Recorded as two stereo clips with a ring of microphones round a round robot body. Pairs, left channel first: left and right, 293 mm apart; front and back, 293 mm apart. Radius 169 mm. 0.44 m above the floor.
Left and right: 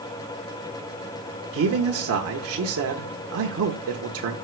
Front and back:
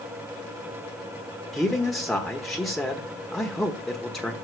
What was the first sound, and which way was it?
A man speaking, 90° right.